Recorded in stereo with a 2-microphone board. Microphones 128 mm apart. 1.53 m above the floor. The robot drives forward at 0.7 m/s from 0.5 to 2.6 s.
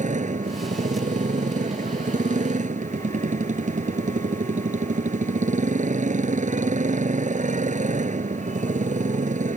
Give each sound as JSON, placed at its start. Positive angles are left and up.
{"t": 0.0, "sound": "a motorcycle", "side_deg": -85}